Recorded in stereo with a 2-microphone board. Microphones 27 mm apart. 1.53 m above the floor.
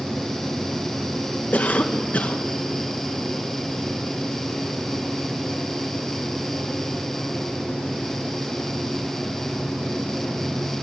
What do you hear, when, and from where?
1.5 s a cough: 60° left (ahead or behind), 2 m